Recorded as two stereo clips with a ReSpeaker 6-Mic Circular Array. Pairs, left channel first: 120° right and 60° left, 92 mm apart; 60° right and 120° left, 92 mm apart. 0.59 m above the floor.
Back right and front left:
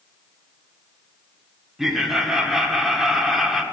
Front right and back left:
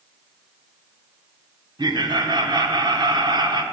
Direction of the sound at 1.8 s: 145° left.